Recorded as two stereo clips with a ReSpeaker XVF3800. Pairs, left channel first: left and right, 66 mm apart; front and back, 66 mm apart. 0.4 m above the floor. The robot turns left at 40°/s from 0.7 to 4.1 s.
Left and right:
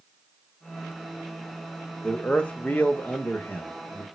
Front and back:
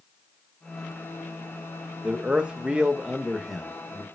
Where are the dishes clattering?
I don't hear dishes clattering.